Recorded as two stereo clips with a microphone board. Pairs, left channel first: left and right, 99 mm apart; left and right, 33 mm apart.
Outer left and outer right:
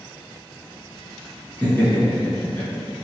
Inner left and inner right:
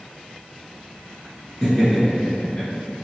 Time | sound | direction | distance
1.6 | laughter | 15° left (ahead or behind) | 1.2 m